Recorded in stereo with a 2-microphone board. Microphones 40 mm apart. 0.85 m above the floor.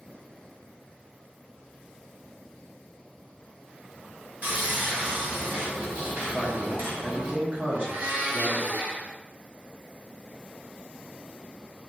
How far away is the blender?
About 0.6 m.